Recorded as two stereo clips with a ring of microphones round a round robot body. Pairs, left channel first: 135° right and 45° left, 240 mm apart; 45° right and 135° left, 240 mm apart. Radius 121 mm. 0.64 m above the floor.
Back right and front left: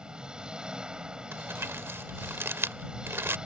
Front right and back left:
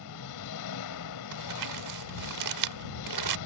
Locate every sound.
0.0 s an engine running: 40° right
1.3 s crumpling: 125° left